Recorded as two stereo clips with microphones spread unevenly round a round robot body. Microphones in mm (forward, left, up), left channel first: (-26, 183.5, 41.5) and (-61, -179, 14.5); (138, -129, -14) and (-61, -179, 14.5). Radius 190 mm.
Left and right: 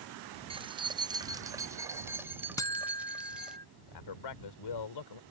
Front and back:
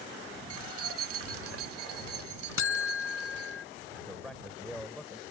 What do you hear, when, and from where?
0.5 s keys jangling: 170° right; by 3.6 s 175° left
2.6 s a buzzer: 5° left
3.9 s a man speaking: 105° left